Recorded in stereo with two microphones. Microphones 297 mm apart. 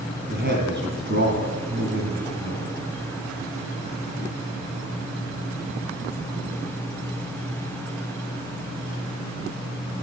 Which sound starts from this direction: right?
A man speaking, at 0.3 s.